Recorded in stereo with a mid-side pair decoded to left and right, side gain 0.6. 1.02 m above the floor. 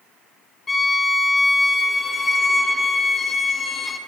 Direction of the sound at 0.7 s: 20° left.